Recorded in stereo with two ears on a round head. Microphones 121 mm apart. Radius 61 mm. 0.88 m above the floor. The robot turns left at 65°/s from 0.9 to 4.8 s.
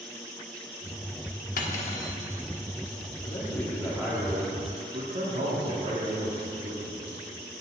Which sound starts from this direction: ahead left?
A man speaking, at 3.2 s.